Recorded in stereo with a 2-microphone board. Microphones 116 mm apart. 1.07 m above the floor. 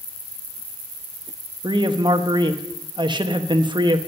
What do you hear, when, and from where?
1.6 s a man speaking: 45° right (ahead or behind), 1.0 m